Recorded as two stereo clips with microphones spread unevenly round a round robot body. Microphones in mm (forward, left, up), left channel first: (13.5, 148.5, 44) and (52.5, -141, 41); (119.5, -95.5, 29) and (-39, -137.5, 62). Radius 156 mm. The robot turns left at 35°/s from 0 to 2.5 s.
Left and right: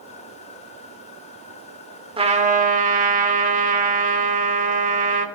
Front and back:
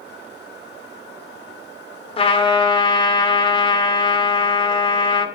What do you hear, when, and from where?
2.2 s a trumpet: 15° right, 2.0 m; by 5.2 s 30° right, 2.0 m